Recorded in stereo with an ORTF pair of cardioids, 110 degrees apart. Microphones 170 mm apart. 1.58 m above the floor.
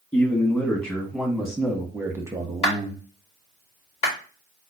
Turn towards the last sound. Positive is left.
turn(degrees=40)